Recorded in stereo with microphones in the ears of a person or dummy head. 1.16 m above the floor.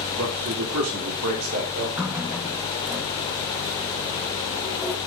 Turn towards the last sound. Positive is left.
turn(degrees=-10)  # may be behind; listen again after turning